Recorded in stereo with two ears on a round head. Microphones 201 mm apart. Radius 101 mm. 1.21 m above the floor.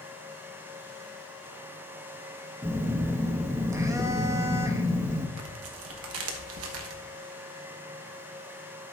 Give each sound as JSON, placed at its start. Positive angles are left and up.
{"t": 2.6, "sound": "a phone buzzing", "side_deg": -15, "distance_m": 0.8}
{"t": 5.4, "sound": "tearing paper", "side_deg": -70, "distance_m": 1.3}